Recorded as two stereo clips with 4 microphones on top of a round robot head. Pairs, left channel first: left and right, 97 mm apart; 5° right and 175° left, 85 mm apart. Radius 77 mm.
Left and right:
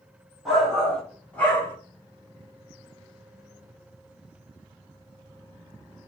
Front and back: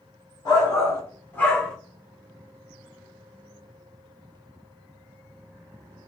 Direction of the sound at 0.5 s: Straight ahead.